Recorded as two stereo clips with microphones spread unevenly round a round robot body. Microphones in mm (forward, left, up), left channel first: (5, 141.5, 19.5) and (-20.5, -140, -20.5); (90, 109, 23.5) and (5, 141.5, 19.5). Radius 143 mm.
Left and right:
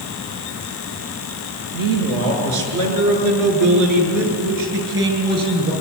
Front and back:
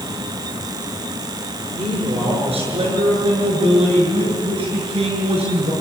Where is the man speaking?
115° right, 6.5 m; by 5.7 s 150° right, 7.5 m.